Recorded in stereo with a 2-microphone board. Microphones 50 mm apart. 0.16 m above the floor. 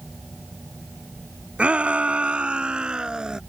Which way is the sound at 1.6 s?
25° right (ahead or behind).